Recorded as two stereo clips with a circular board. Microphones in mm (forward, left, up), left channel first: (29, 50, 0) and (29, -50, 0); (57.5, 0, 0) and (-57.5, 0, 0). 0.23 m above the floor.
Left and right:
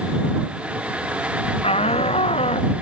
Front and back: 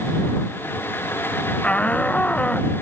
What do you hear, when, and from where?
1.6 s a shout: 80° left